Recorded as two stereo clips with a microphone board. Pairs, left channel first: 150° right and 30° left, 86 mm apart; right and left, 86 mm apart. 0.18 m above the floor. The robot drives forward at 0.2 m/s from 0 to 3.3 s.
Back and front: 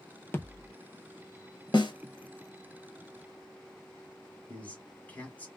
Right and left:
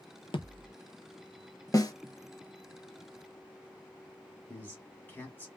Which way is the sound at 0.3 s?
85° right.